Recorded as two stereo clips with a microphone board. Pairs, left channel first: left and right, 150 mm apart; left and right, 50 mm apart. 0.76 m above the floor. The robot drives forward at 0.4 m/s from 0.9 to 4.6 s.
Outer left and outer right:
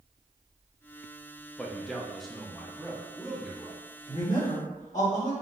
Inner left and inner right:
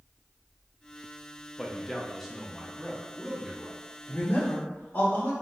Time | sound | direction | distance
1.6 | a man speaking | centre (ahead or behind) | 0.7 m
4.1 | a man speaking | 55° left (ahead or behind) | 1.7 m